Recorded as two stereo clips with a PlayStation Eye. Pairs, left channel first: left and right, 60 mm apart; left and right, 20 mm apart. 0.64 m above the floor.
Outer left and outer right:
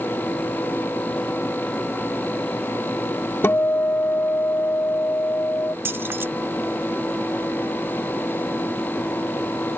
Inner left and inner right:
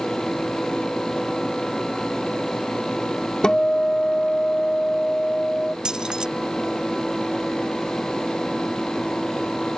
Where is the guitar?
40° left (ahead or behind).